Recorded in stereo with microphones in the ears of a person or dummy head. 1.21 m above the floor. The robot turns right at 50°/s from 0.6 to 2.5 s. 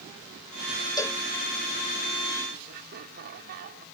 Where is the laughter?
50° right (ahead or behind).